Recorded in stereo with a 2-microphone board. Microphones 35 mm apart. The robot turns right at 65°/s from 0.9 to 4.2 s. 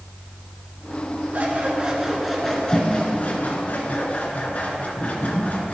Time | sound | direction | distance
1.3 | scissors | 65° right | 3 m